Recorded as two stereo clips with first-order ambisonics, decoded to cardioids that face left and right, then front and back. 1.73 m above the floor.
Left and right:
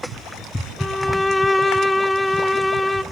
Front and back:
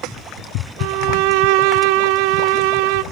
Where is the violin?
175° left, 1.2 m.